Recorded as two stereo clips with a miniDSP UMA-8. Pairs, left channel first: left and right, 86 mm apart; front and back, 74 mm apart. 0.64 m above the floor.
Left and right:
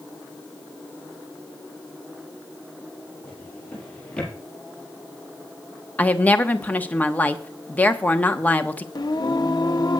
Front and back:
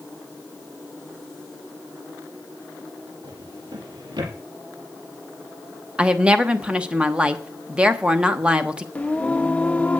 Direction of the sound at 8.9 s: 65° left.